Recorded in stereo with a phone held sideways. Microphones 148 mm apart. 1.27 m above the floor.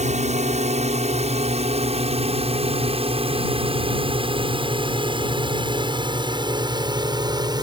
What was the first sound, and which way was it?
A drone, 50° right (ahead or behind).